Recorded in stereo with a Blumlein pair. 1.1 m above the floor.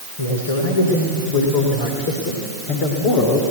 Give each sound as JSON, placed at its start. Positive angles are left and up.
{"t": 0.2, "sound": "a man speaking", "azimuth_deg": 70, "distance_m": 3.0}